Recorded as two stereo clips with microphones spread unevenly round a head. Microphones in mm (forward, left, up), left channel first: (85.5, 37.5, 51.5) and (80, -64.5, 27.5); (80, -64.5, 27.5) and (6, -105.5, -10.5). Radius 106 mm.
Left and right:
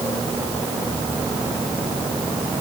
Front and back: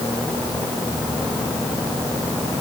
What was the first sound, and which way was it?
Only background noise.